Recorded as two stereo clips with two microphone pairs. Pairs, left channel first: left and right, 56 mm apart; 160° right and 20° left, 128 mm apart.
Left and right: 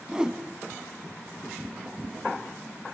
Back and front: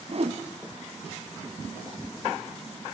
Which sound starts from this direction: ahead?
A whoosh, at 0.1 s.